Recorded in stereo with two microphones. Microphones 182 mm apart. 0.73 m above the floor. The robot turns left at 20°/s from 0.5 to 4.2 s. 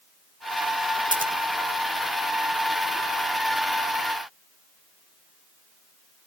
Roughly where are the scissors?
Right.